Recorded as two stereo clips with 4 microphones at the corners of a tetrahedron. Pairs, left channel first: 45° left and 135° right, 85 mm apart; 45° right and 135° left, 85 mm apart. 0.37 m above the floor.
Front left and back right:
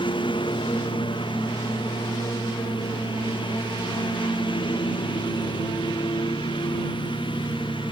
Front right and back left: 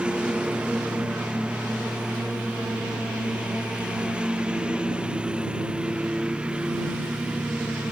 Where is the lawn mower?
60° left.